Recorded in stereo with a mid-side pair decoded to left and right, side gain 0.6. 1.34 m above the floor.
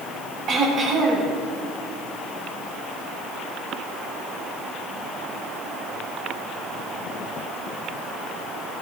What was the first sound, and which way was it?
Throat clearing, 55° right.